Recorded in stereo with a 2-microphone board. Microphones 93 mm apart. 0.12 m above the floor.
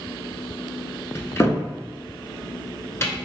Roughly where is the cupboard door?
Left.